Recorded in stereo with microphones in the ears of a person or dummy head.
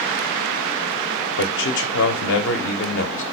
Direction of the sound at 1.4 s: 60° left (ahead or behind).